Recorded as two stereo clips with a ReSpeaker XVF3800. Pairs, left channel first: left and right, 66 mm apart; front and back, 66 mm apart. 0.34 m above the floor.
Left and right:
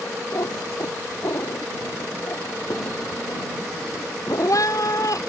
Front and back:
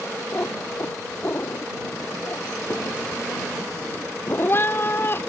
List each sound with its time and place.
0.3 s a cat meowing: 55° left